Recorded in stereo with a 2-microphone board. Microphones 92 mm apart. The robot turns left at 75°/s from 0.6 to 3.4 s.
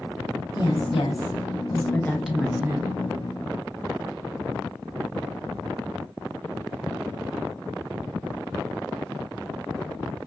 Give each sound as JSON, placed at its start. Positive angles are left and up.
{"t": 0.6, "sound": "a woman speaking", "azimuth_deg": 125, "distance_m": 1.1}